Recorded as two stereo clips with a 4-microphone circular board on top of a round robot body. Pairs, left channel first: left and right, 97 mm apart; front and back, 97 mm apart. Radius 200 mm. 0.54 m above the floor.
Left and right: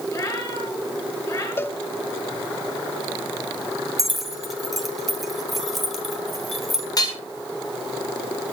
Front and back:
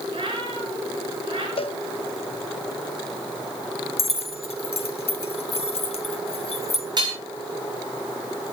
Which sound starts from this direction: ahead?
Keys jangling, at 4.0 s.